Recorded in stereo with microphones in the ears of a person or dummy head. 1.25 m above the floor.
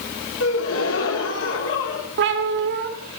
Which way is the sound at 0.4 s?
80° left.